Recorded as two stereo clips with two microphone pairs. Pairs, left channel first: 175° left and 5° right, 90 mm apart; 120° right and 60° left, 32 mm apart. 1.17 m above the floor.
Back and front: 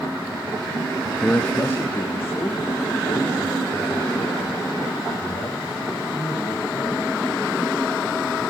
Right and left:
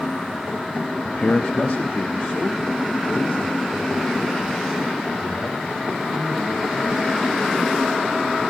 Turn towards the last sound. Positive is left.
turn(degrees=-135)